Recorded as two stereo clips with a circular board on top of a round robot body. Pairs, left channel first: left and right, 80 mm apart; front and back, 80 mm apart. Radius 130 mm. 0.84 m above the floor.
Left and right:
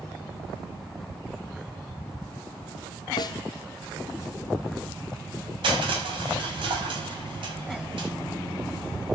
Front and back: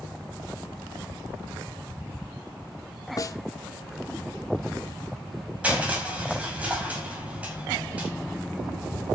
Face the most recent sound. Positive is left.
turn(degrees=-105)